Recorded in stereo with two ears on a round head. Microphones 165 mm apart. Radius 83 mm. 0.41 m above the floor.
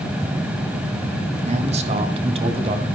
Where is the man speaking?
40° right (ahead or behind), 3 m; by 2.9 s 30° right (ahead or behind), 2.5 m.